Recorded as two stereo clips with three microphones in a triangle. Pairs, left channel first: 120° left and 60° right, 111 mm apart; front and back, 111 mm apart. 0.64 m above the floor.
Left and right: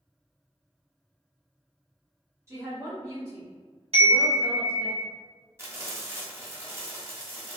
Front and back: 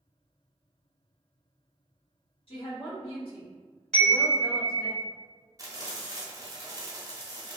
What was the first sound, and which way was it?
A woman speaking, straight ahead.